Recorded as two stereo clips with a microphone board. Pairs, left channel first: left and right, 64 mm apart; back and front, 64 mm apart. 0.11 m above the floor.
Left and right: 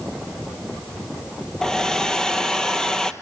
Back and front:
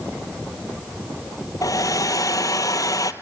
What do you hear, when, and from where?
1.6 s a hair dryer: 170° left, 1.0 m